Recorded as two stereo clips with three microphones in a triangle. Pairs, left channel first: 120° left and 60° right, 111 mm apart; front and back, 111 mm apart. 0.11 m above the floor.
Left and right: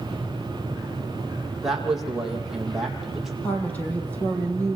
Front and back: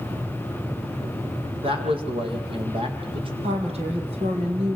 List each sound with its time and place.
1.6 s a man speaking: 145° right, 6 m
3.4 s a woman speaking: 165° right, 5 m